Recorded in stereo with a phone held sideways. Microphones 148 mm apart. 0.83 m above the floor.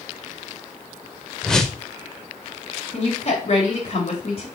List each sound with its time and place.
1.4 s a whoosh: 5° left (ahead or behind), 0.9 m
2.9 s a woman speaking: 50° left (ahead or behind), 3.5 m